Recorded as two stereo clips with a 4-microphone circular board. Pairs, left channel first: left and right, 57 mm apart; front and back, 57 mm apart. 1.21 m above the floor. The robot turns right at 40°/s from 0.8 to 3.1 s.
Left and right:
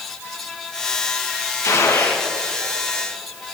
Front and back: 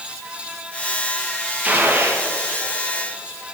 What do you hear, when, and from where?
1.6 s a gunshot: 115° left, 1.5 m; by 2.2 s 140° left, 1.5 m